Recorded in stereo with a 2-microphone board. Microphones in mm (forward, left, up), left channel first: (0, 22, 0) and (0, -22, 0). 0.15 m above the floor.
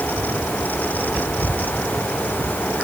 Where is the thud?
No thud in this recording.